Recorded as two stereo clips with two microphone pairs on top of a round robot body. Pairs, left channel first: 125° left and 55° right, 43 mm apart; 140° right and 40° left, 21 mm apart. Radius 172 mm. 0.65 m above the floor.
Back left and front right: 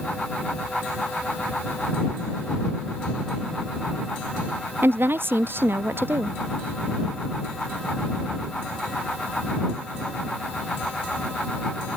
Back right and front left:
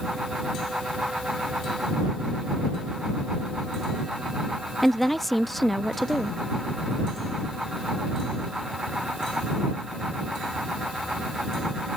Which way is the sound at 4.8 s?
45° right.